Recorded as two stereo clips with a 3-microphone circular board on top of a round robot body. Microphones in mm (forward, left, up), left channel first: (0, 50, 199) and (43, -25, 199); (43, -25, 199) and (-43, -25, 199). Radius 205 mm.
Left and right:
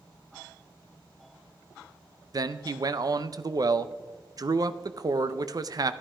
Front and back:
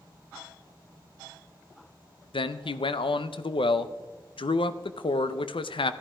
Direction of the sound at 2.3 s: 15° right.